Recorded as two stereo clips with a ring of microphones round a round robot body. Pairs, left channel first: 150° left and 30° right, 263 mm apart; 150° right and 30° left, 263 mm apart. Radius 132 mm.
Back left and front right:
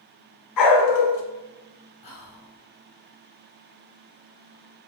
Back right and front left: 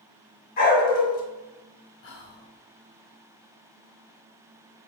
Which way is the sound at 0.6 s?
150° left.